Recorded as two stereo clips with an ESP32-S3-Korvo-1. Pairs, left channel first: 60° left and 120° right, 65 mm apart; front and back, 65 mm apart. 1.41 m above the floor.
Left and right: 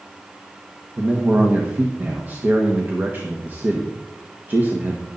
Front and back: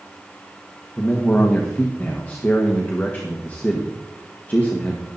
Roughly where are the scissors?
No scissors in this recording.